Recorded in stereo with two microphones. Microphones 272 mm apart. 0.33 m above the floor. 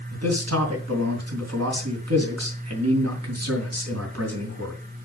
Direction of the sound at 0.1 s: 70° right (ahead or behind).